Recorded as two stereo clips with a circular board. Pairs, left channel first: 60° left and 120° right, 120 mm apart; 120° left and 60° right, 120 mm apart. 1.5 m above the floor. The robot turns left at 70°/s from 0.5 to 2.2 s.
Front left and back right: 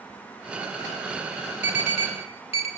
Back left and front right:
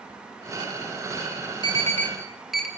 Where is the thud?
No thud in this recording.